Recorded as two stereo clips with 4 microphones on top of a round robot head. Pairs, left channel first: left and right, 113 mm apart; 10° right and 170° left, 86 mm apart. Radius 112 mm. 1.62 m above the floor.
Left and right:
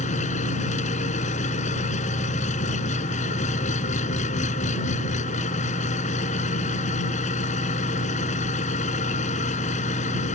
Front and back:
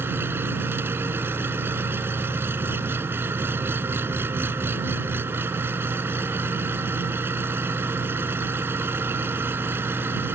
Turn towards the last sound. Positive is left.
turn(degrees=105)